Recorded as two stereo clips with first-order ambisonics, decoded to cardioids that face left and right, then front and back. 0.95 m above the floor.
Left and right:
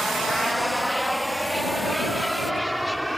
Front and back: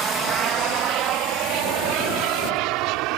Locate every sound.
0.0 s an aircraft: straight behind